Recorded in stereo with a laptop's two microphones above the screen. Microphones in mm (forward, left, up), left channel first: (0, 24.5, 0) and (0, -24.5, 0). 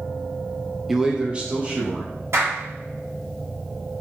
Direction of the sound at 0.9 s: 5° right (ahead or behind).